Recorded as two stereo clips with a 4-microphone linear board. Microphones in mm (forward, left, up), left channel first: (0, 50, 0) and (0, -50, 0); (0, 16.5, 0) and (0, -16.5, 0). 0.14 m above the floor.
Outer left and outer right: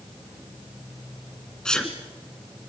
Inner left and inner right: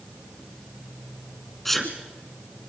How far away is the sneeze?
About 1.4 m.